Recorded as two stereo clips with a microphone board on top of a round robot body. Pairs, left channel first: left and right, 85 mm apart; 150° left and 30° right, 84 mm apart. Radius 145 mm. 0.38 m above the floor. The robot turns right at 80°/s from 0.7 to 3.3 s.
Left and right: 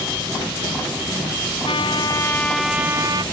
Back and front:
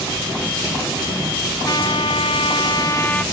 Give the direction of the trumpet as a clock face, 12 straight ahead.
9 o'clock.